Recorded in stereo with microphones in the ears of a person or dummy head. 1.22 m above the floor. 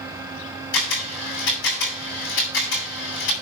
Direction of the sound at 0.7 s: 70° left (ahead or behind).